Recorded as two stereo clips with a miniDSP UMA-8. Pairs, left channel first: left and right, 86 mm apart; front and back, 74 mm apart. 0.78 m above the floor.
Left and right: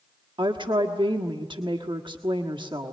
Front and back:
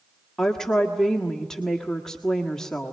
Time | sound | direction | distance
0.4 | a woman speaking | 80° right | 1.5 m